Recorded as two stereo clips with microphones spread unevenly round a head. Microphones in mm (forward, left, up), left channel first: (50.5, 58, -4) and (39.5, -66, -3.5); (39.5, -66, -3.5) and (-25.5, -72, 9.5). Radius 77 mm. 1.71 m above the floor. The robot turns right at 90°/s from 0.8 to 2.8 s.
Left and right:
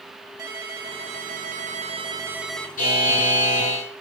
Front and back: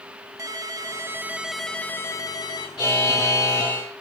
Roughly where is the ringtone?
Behind.